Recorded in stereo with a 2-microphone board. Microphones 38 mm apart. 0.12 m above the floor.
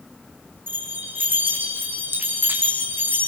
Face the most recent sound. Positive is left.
turn(degrees=-70)  # may be behind; listen again after turning